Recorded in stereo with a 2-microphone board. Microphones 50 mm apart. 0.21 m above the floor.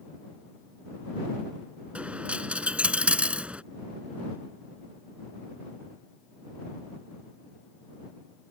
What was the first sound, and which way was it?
A dropped coin, 25° right (ahead or behind).